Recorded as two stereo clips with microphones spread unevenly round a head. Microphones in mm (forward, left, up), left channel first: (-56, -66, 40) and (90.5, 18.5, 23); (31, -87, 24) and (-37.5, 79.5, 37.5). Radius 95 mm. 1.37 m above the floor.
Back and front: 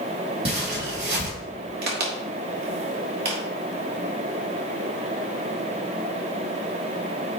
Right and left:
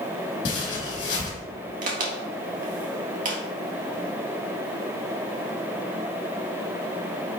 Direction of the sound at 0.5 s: 25° right.